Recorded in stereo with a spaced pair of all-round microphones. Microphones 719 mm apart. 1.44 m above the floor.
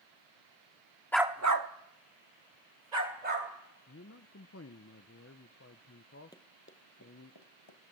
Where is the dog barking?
5° left (ahead or behind), 1.0 m; by 3.5 s 70° right (ahead or behind), 3.5 m.